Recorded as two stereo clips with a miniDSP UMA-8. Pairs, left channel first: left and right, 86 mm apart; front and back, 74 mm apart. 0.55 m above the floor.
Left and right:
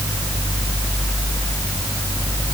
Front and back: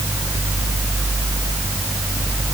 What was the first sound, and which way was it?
Only background noise.